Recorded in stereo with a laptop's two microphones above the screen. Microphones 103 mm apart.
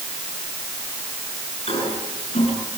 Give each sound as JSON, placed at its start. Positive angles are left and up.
{"t": 1.7, "sound": "a toilet flushing", "side_deg": 75, "distance_m": 7.5}